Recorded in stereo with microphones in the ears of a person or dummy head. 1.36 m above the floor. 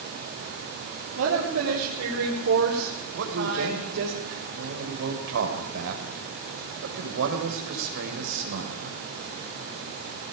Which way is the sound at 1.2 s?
85° right.